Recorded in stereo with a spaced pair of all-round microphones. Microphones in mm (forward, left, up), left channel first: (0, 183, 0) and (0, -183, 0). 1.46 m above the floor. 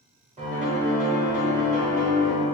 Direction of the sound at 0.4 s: 20° right (ahead or behind).